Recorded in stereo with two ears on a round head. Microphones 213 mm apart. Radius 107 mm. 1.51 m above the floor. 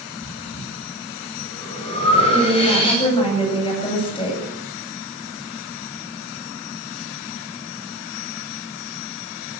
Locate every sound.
0.2 s breathing: 25° left (ahead or behind), 9 m
2.3 s a woman speaking: 25° left (ahead or behind), 9.5 m